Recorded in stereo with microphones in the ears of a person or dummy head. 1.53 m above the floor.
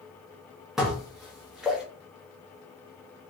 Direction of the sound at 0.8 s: Centre (ahead or behind).